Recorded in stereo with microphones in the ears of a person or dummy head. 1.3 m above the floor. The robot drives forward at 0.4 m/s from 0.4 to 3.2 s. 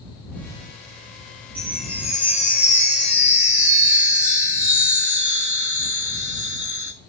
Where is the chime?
Centre (ahead or behind), 2 m.